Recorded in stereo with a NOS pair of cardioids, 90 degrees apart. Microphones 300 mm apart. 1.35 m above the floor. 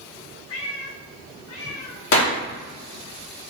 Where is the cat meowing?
55° left, 3 m; by 3.1 s 70° left, 4 m.